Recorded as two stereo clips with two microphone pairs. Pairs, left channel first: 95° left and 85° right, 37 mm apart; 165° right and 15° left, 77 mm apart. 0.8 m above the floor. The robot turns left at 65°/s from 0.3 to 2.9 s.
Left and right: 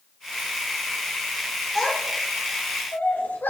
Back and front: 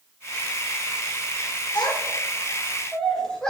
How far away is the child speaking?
About 2 m.